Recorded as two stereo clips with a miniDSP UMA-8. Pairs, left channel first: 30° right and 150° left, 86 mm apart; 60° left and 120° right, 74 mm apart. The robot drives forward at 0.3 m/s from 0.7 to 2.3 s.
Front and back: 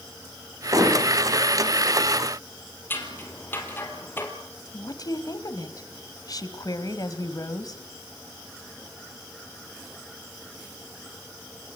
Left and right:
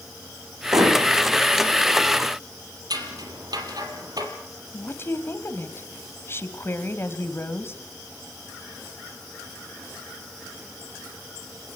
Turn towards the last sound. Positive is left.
turn(degrees=10)